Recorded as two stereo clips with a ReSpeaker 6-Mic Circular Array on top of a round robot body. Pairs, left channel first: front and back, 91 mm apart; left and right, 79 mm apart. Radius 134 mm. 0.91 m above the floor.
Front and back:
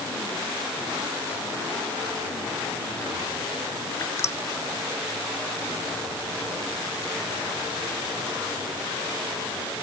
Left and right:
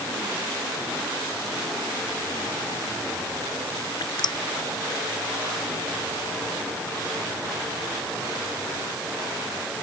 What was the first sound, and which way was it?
Dripping, 60° left.